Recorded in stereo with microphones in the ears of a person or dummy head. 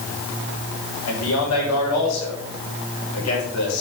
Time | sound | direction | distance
1.1 | a man speaking | 85° left | 5.5 m